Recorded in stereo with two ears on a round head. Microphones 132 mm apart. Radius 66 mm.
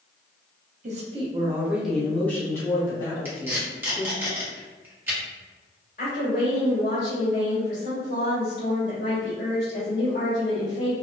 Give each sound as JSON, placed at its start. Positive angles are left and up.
{"t": 0.8, "sound": "a woman speaking", "side_deg": -50, "distance_m": 0.8}
{"t": 3.2, "sound": "tape being pulled", "side_deg": -15, "distance_m": 1.2}
{"t": 6.0, "sound": "a woman speaking", "side_deg": 50, "distance_m": 1.9}